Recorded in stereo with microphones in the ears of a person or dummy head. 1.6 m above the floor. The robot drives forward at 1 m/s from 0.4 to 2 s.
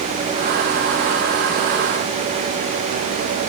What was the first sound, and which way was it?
Only background noise.